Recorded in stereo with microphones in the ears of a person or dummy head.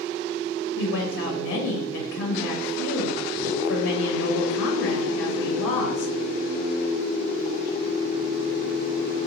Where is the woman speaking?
70° left (ahead or behind), 0.8 m.